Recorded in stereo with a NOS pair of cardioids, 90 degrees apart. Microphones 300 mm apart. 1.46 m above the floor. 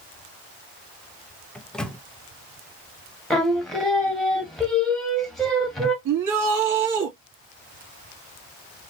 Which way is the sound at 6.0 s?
65° right.